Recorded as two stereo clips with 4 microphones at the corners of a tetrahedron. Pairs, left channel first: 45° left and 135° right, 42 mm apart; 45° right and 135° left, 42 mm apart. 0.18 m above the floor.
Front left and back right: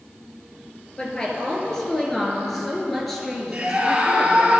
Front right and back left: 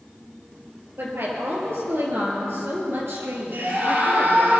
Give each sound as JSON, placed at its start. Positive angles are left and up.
{"t": 1.0, "sound": "a woman speaking", "azimuth_deg": 115, "distance_m": 4.0}
{"t": 3.5, "sound": "a scream", "azimuth_deg": 170, "distance_m": 4.0}